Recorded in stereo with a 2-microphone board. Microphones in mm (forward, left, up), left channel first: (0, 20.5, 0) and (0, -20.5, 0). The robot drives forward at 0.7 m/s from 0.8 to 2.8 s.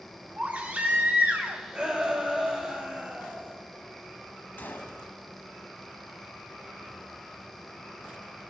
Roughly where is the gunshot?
Left.